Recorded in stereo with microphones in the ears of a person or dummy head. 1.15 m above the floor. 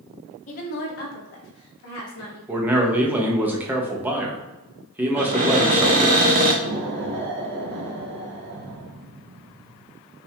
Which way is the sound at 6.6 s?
50° right (ahead or behind).